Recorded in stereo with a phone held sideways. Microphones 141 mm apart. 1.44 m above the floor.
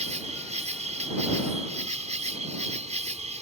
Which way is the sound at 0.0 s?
50° right (ahead or behind).